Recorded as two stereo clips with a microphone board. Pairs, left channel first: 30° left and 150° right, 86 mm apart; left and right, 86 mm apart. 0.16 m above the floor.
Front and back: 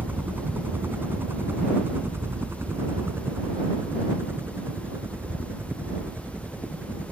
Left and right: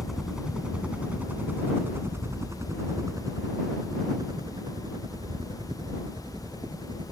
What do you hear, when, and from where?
0.0 s a helicopter: 175° right; by 7.1 s 85° right